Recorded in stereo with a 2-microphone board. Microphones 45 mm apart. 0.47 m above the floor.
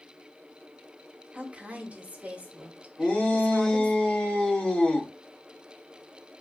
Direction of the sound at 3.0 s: 25° left (ahead or behind).